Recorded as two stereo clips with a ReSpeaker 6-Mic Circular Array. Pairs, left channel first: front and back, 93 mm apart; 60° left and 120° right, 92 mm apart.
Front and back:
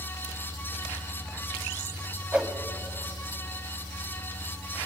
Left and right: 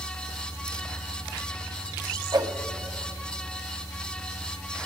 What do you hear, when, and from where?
2.3 s a whoosh: 105° right, 1.5 m